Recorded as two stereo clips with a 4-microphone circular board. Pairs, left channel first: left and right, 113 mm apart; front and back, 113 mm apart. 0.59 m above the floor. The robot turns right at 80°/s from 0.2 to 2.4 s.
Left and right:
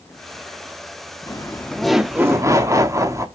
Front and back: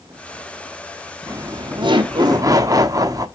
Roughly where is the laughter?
Behind left.